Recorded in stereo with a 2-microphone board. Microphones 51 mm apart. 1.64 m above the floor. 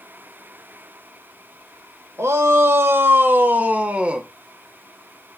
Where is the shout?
65° right (ahead or behind), 2.5 m; by 4.3 s 20° right (ahead or behind), 1.9 m.